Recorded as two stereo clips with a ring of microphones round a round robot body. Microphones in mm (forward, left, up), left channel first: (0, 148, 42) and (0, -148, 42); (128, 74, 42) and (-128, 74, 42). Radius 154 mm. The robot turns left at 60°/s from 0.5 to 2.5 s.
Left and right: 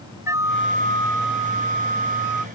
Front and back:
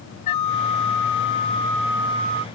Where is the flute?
10° right; by 2.5 s 125° right.